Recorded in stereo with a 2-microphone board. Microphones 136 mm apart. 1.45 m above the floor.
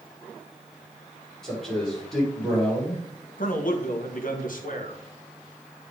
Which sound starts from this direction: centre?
A man speaking, at 1.4 s.